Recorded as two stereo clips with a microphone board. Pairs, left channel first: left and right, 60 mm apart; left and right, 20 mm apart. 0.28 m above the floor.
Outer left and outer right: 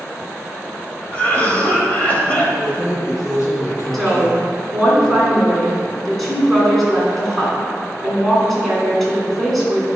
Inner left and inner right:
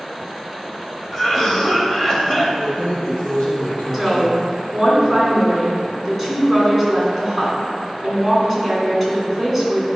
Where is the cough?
25° left (ahead or behind), 1.0 m.